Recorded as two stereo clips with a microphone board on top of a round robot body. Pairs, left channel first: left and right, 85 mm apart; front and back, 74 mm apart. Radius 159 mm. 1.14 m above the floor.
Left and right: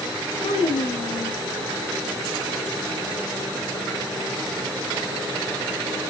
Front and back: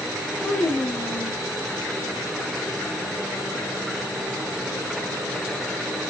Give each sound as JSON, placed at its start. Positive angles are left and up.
{"t": 0.4, "sound": "a child speaking", "azimuth_deg": 75, "distance_m": 1.7}